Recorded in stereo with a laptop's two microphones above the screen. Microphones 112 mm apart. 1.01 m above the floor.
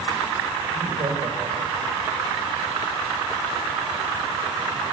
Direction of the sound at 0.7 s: 60° right (ahead or behind).